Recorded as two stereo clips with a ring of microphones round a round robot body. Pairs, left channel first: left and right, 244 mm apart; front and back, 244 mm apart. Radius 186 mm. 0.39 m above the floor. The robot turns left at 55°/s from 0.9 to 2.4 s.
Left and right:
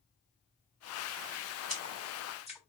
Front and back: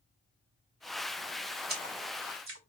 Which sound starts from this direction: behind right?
A splash, at 1.7 s.